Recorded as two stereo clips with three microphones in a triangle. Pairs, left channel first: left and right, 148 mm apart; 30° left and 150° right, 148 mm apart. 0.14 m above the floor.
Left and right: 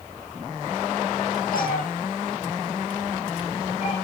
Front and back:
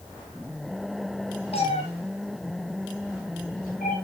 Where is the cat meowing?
80° left, 4 m; by 4.0 s 45° left, 5 m.